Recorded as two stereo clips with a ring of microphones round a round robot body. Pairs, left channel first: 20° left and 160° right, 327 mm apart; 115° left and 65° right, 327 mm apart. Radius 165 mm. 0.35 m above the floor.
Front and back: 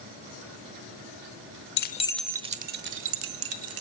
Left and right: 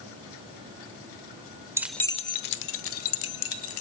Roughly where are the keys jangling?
Ahead.